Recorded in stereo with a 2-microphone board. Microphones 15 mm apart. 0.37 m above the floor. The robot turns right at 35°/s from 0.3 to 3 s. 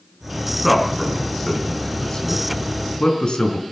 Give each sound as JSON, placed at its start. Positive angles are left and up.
{"t": 0.6, "sound": "a man speaking", "side_deg": -10, "distance_m": 3.5}